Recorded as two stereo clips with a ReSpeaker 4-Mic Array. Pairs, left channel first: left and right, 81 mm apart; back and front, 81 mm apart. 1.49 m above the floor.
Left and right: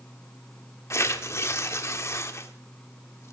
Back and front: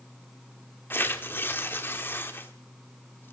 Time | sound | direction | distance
0.9 | tearing paper | 130° left | 1.5 m